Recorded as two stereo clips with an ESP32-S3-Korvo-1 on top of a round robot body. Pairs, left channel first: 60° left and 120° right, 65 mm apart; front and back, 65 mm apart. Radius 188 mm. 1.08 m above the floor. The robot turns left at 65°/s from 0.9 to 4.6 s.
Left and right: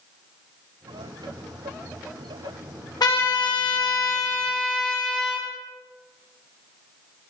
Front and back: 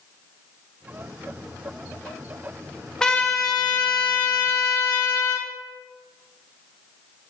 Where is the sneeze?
I don't hear a sneeze.